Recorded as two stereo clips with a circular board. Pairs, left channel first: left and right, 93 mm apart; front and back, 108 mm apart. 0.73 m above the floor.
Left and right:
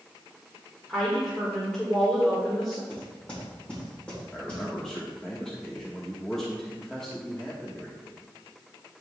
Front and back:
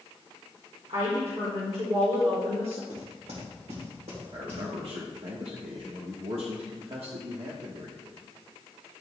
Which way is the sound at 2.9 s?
165° left.